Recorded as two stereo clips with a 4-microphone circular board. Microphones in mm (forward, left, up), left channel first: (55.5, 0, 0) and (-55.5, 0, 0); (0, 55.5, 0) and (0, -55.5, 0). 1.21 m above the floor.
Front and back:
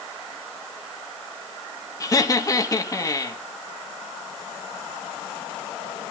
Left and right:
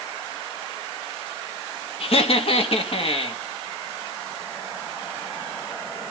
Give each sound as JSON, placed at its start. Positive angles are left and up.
{"t": 2.0, "sound": "laughter", "azimuth_deg": 60, "distance_m": 2.0}